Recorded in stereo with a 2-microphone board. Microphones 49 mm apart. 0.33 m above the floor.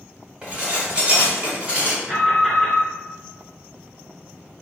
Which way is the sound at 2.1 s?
10° left (ahead or behind).